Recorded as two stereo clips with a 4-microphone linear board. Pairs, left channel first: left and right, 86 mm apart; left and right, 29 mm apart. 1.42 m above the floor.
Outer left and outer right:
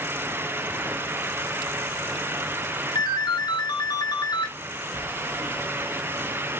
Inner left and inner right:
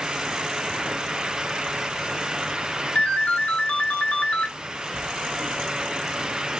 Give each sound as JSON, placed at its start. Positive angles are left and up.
{"t": 3.0, "sound": "a ringtone", "side_deg": 55, "distance_m": 1.4}
{"t": 5.0, "sound": "writing", "side_deg": 60, "distance_m": 4.5}